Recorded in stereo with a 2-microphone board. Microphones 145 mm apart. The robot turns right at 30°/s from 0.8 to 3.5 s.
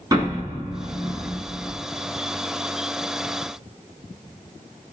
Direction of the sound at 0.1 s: 25° right (ahead or behind).